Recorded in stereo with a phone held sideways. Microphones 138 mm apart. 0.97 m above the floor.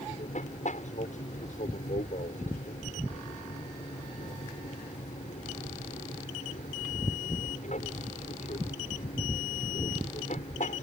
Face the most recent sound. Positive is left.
turn(degrees=65)  # may be behind; listen again after turning